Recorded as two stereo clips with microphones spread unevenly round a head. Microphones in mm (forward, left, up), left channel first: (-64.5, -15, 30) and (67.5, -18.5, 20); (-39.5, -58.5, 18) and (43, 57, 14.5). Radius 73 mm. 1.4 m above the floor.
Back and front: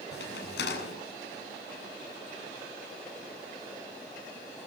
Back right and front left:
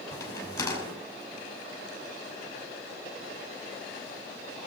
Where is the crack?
165° left, 6 m.